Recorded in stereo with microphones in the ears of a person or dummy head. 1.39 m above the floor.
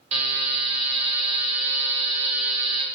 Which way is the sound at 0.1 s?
35° right (ahead or behind).